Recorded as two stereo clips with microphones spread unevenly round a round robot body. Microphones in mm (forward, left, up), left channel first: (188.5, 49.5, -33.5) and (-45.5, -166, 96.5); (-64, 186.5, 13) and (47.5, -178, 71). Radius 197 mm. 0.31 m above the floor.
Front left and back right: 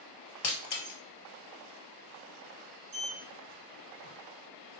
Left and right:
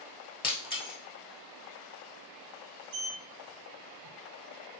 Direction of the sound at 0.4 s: 35° left.